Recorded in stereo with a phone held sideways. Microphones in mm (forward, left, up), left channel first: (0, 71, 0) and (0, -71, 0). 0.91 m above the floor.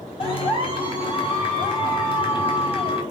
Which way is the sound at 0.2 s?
40° left (ahead or behind).